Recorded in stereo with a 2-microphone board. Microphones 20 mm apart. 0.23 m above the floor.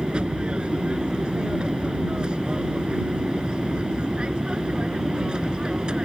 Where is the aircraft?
50° right (ahead or behind); by 6.1 s 45° right (ahead or behind).